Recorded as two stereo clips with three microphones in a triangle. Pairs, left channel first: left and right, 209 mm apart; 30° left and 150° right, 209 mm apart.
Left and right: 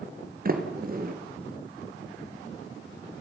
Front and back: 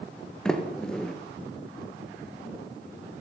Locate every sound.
0.5 s a sliding door: 55° right, 3 m